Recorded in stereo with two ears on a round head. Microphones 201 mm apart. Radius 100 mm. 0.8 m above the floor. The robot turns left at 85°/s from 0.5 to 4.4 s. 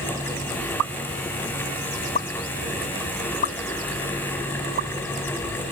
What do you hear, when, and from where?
0.8 s a pop: 80° right; by 4.9 s 45° right (ahead or behind)